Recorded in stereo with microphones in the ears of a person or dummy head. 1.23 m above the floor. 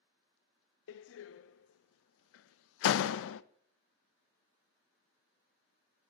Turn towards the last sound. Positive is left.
turn(degrees=75)  # may be behind; listen again after turning